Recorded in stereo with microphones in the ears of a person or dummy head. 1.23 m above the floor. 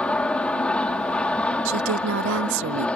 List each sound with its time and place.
0.0 s an aircraft: 10° left (ahead or behind)
1.6 s a woman speaking: 65° right (ahead or behind)